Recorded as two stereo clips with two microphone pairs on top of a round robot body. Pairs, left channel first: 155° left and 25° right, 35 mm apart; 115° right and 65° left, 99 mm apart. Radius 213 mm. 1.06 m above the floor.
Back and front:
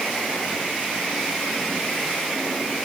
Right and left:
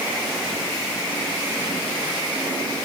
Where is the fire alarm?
No fire alarm in this recording.